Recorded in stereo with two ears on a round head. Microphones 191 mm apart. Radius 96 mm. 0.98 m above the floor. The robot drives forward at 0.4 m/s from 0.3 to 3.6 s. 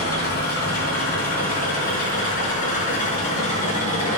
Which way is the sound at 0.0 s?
50° left (ahead or behind).